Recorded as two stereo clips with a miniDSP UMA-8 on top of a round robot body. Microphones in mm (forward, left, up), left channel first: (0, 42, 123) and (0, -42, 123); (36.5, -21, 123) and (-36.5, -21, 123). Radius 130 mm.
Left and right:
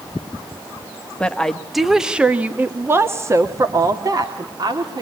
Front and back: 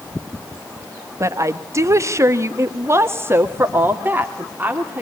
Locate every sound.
1.2 s a woman speaking: 165° left, 1.4 m; by 5.0 s 115° right, 2.5 m